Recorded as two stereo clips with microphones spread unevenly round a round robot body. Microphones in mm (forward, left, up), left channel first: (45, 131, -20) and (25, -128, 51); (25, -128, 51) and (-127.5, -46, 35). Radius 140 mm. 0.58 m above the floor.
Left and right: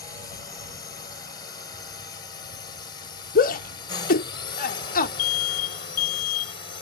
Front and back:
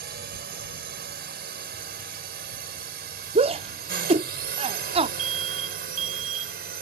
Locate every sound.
0.0 s a drone: 150° left; by 6.8 s 145° left
3.4 s a shout: 110° left
5.2 s an alarm: 105° left